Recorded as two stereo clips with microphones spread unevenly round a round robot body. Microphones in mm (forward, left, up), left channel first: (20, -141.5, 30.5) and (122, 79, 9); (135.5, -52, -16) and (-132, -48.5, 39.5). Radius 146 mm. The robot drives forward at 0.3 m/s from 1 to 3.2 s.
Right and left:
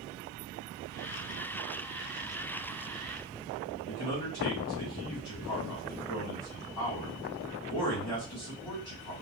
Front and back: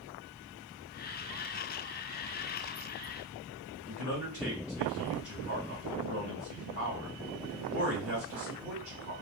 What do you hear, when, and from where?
3.9 s a man speaking: 140° right, 2 m